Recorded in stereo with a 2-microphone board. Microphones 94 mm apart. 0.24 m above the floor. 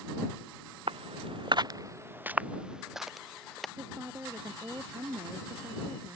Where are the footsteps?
75° right (ahead or behind); by 3.7 s 5° left (ahead or behind).